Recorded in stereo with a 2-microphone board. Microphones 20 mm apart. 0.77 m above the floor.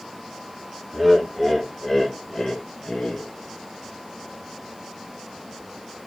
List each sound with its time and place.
0.9 s laughter: 15° right (ahead or behind), 1.3 m; by 3.3 s 35° left (ahead or behind), 1.2 m